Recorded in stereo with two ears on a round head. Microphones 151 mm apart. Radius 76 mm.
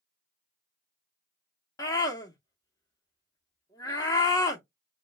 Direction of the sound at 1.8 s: 25° left (ahead or behind).